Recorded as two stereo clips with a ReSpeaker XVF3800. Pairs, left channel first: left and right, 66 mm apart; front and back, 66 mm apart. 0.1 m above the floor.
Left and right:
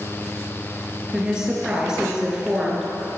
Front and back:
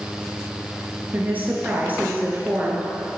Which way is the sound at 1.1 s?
155° right.